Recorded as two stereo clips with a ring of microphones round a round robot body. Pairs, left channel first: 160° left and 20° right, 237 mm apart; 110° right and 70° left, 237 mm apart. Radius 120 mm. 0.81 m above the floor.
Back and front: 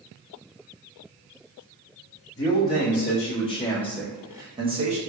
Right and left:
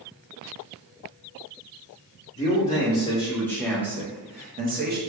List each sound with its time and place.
2.4 s a man speaking: 160° right, 1.2 m; by 5.0 s 30° left, 1.1 m